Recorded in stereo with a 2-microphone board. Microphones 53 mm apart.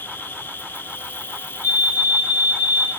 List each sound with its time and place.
0.0 s an insect: 45° left (ahead or behind), 0.9 m
1.6 s a fire alarm: 70° left (ahead or behind), 6 m